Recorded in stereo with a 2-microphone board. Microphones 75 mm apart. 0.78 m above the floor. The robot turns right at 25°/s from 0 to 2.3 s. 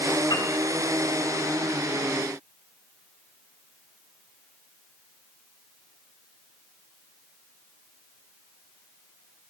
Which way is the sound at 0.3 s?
65° left (ahead or behind).